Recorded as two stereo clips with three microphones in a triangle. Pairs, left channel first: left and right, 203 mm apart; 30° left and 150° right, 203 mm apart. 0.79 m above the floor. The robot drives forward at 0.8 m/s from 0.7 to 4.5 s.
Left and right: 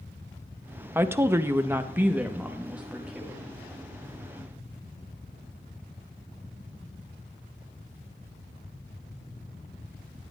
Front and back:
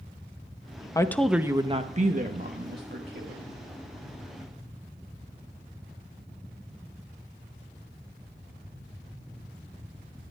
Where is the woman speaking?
25° right, 0.7 m; by 3.5 s 175° right, 1.9 m.